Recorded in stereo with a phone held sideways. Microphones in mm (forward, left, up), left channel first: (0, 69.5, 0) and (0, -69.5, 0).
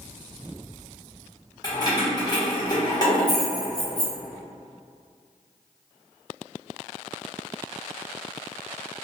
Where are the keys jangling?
30° left (ahead or behind), 0.9 m.